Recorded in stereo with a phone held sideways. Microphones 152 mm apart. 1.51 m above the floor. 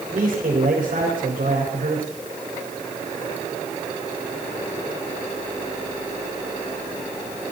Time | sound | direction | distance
0.1 | a man speaking | 70° right (ahead or behind) | 5 m